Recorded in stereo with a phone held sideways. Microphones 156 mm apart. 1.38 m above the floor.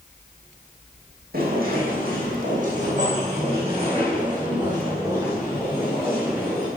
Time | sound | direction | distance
1.3 | footsteps | 70° right (ahead or behind) | 4 m